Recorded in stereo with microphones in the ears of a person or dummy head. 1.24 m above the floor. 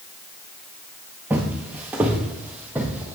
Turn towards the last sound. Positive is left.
turn(degrees=-10)  # may be behind; listen again after turning